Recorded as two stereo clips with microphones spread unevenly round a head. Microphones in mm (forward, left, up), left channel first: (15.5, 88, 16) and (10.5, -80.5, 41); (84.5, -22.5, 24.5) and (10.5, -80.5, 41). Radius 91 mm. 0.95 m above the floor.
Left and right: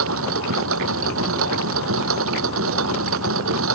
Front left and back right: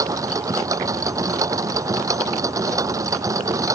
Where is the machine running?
85° right.